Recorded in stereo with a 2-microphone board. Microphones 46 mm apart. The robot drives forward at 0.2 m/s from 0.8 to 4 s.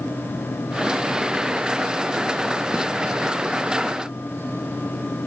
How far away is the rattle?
I don't hear a rattle.